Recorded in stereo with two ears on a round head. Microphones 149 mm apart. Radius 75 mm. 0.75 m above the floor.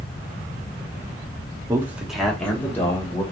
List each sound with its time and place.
1.7 s a man speaking: 20° right (ahead or behind), 0.8 m; by 3.2 s 20° left (ahead or behind), 1.9 m